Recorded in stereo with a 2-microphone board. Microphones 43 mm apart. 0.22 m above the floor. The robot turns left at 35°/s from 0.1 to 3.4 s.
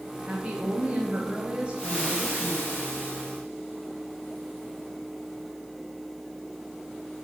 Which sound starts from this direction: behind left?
Frying, at 1.8 s.